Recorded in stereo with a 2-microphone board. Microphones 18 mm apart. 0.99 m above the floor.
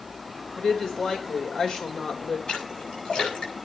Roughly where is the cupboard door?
I don't hear a cupboard door.